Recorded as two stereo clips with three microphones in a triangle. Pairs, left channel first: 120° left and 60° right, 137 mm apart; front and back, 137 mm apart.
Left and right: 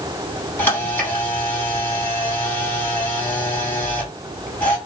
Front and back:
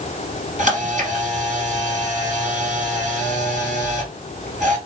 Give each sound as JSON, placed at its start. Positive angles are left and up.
{"t": 0.6, "sound": "a camera shutter", "azimuth_deg": -165, "distance_m": 3.0}